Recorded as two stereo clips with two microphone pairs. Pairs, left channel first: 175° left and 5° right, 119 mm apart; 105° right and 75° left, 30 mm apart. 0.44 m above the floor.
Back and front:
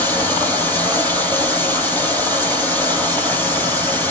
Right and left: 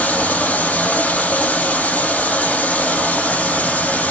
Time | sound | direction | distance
0.0 | running water | 110° right | 6.5 m